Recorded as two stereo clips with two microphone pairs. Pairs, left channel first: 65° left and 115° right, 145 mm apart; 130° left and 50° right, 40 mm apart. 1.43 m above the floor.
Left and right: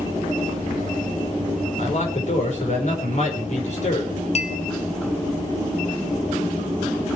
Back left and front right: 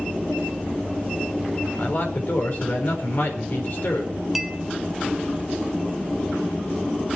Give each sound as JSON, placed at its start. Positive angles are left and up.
{"t": 1.8, "sound": "a man speaking", "azimuth_deg": 100, "distance_m": 5.0}
{"t": 4.3, "sound": "a clink", "azimuth_deg": 35, "distance_m": 1.4}